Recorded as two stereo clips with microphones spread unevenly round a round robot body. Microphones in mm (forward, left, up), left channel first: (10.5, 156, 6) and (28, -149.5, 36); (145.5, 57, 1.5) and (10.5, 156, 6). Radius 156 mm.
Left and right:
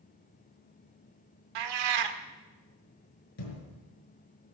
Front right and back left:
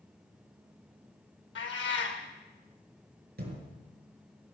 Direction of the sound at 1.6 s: 85° right.